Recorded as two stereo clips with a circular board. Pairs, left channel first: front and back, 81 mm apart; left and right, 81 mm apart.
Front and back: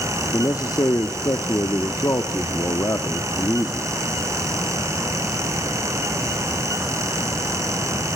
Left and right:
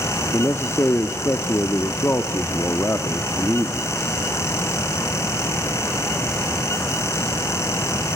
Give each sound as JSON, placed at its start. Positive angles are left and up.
{"t": 0.3, "sound": "a man speaking", "azimuth_deg": 35, "distance_m": 1.2}